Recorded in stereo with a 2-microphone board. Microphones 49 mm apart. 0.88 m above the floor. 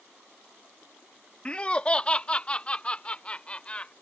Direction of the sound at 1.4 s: 25° left (ahead or behind).